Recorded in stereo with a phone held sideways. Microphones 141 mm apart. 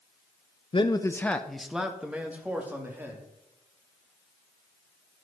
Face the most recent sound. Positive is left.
turn(degrees=-15)  # may be behind; listen again after turning